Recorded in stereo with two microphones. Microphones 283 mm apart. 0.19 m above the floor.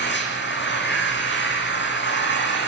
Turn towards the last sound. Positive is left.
turn(degrees=40)  # may be behind; listen again after turning